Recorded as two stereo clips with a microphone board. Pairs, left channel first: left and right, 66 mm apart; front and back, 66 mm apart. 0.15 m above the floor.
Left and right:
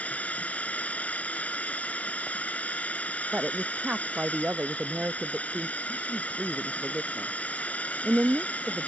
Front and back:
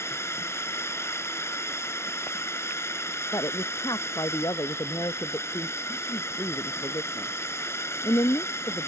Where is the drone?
30° left.